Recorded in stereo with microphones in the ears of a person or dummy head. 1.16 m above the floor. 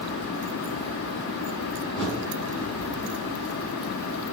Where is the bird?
Centre (ahead or behind), 1.3 m.